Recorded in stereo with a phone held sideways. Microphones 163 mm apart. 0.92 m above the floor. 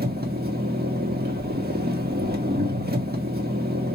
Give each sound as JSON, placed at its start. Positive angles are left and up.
{"t": 0.0, "sound": "an engine running", "side_deg": -75, "distance_m": 1.6}